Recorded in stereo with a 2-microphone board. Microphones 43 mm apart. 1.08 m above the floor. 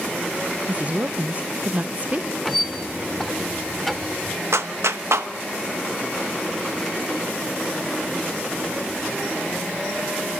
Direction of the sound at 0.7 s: 35° right (ahead or behind).